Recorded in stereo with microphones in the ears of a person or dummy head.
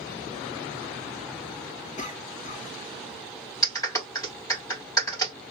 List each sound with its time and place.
2.0 s a cough: 40° left (ahead or behind), 2 m
3.6 s a clap: 15° left (ahead or behind), 2.5 m